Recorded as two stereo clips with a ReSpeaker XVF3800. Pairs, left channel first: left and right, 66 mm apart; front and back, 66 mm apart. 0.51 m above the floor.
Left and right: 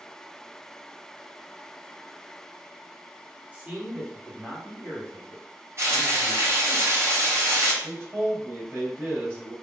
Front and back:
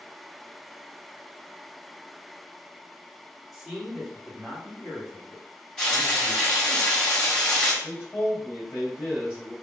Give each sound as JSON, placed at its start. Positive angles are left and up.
{"t": 3.5, "sound": "a man speaking", "azimuth_deg": -95, "distance_m": 1.3}
{"t": 5.8, "sound": "frying", "azimuth_deg": -80, "distance_m": 1.7}
{"t": 7.8, "sound": "a man speaking", "azimuth_deg": -40, "distance_m": 1.8}